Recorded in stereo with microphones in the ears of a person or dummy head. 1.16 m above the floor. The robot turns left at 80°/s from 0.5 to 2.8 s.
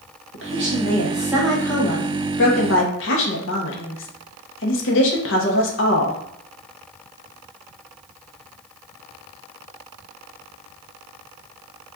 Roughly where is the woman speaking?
Right.